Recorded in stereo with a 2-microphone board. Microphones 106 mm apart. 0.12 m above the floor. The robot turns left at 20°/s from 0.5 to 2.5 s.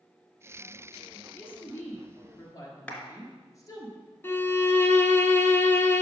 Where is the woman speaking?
15° left (ahead or behind), 1.6 m; by 3.9 s 35° left (ahead or behind), 1.6 m.